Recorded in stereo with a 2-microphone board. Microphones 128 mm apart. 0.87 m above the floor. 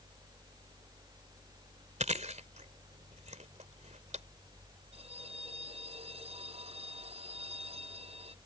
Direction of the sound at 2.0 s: 65° right (ahead or behind).